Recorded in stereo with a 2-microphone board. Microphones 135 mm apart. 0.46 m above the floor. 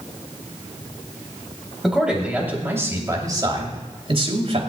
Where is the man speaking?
5° right (ahead or behind), 2.5 m; by 4.6 s 50° right (ahead or behind), 2.5 m.